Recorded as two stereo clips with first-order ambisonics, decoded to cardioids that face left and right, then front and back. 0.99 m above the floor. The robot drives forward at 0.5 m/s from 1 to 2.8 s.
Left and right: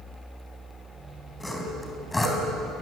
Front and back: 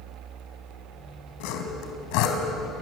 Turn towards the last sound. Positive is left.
turn(degrees=10)